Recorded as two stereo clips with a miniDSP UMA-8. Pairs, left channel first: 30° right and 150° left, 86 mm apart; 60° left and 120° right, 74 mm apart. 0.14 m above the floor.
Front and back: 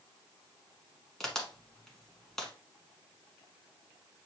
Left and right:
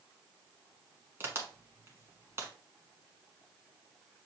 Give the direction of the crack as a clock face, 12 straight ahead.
4 o'clock.